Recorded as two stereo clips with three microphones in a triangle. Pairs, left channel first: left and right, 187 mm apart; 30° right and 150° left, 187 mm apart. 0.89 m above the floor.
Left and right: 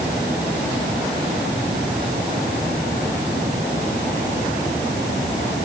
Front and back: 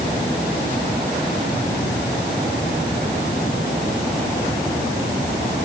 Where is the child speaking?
I don't hear a child speaking.